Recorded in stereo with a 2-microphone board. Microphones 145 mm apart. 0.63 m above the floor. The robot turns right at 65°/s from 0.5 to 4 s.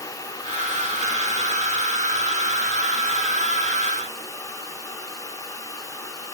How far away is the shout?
No shout in this recording.